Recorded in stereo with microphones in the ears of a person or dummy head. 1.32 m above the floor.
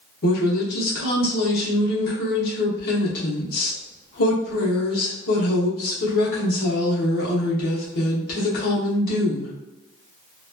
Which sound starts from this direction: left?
A woman speaking, at 0.2 s.